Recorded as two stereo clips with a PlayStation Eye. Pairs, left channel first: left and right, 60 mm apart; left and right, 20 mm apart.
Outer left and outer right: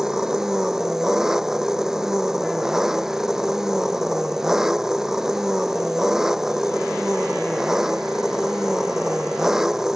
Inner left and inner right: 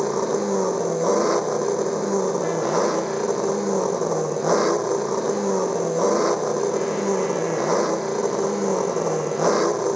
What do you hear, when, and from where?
0.0 s an engine running: 10° right (ahead or behind)